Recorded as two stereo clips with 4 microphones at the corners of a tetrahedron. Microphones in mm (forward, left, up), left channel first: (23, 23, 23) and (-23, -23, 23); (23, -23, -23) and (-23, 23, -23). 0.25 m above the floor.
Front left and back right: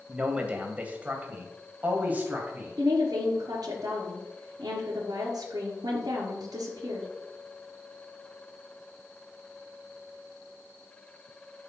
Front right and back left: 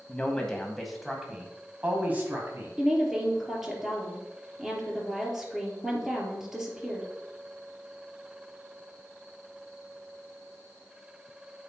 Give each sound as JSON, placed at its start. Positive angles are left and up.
{"t": 0.1, "sound": "a man speaking", "azimuth_deg": -90, "distance_m": 1.7}
{"t": 2.8, "sound": "a woman speaking", "azimuth_deg": -140, "distance_m": 4.0}